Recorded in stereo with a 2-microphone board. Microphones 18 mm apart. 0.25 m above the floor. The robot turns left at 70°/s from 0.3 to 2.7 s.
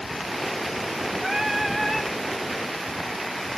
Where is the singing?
135° right, 1.3 m; by 2.1 s 160° left, 1.3 m.